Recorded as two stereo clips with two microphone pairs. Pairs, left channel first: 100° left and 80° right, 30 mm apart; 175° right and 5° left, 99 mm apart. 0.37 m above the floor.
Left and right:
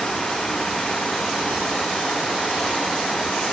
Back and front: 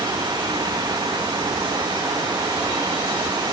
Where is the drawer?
I don't hear a drawer.